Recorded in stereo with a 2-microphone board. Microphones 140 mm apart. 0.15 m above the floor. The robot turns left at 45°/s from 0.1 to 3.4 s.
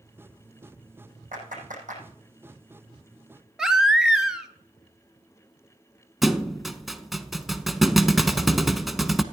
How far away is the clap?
About 5 m.